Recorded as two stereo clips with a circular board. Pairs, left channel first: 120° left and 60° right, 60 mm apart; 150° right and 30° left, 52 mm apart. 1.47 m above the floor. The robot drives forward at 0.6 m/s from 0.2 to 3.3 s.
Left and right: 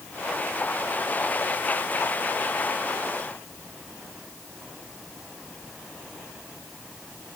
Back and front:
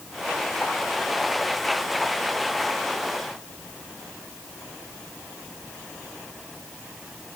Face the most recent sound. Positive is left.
No sound to turn to.